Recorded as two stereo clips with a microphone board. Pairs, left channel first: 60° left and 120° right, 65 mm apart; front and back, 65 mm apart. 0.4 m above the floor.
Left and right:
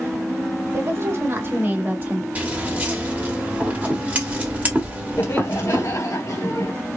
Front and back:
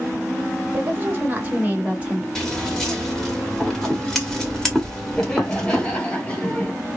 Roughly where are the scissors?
Right.